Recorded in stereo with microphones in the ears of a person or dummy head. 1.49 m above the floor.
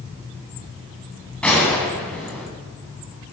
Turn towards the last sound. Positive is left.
turn(degrees=5)  # may be behind; listen again after turning